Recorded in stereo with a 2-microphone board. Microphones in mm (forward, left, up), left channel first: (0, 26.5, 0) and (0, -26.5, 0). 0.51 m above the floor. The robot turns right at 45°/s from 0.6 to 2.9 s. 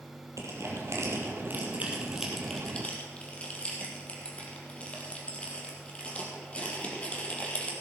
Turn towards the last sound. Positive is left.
turn(degrees=25)  # may be behind; listen again after turning